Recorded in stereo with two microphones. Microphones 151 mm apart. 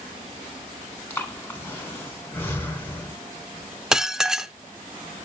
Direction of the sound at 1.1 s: 15° left (ahead or behind).